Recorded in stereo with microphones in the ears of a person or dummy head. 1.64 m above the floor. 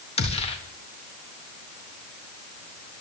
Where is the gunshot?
35° left (ahead or behind), 1.5 m.